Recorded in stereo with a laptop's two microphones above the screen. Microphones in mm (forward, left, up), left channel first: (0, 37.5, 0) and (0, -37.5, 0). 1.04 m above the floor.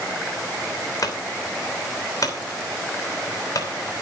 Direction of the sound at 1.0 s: 50° left (ahead or behind).